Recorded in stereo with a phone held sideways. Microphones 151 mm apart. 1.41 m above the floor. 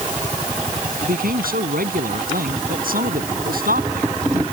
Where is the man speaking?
70° right (ahead or behind).